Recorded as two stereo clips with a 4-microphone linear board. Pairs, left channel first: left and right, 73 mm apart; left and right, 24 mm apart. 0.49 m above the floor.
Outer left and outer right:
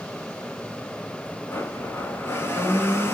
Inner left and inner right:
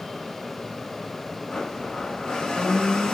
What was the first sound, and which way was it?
A blender, 30° left (ahead or behind).